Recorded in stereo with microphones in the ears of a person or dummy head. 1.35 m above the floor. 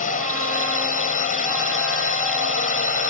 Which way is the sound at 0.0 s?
40° left (ahead or behind).